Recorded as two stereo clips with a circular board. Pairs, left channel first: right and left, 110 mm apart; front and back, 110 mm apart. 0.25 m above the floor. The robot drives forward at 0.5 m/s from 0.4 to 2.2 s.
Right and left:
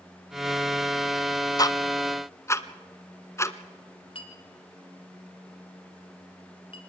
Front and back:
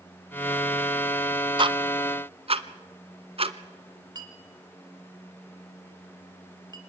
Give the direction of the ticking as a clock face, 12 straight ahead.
5 o'clock.